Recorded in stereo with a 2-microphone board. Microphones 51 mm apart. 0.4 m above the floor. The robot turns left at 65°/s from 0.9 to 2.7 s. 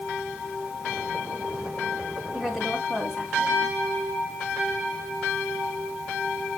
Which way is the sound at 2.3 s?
15° right (ahead or behind).